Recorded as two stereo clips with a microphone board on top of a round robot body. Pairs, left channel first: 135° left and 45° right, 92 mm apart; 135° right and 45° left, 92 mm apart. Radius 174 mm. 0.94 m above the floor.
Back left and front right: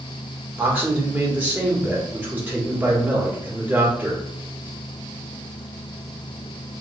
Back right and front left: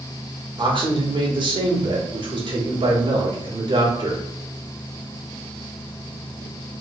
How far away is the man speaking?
About 1.5 m.